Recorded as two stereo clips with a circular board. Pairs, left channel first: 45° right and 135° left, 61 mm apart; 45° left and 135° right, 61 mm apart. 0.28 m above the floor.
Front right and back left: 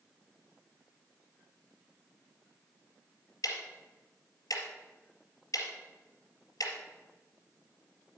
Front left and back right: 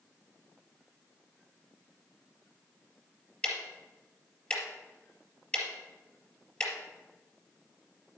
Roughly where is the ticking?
Ahead right.